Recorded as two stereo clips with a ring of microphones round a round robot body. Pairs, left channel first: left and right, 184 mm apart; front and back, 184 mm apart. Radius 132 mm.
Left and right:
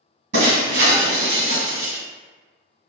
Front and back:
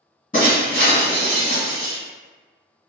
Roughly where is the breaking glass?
Right.